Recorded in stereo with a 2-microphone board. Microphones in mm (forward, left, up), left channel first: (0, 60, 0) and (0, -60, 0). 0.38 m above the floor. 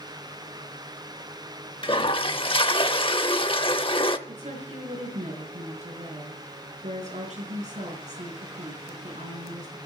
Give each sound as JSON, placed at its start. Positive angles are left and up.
{"t": 1.8, "sound": "a toilet flushing", "side_deg": 45, "distance_m": 0.7}
{"t": 4.3, "sound": "a woman speaking", "side_deg": -80, "distance_m": 5.0}